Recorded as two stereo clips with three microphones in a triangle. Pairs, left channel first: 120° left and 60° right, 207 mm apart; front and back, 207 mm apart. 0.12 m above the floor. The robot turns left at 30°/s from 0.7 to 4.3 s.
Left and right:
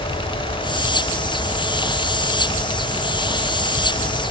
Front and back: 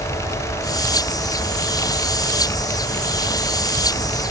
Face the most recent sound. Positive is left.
No sound to turn to.